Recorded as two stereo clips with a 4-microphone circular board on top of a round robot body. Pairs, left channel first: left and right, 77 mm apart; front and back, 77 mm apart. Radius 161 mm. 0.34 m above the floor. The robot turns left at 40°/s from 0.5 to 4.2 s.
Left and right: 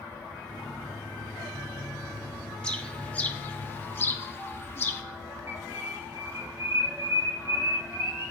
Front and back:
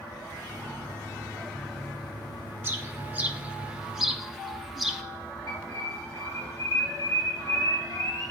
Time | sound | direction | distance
2.6 | a bird | 160° left | 1.0 m
5.5 | a bird | 35° right | 2 m